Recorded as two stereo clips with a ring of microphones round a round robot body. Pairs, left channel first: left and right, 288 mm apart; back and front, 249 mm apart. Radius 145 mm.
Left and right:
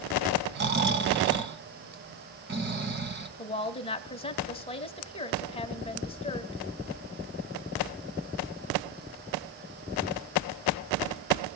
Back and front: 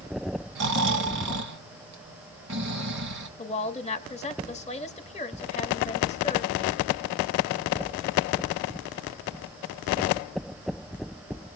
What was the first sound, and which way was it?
Snoring, 35° right.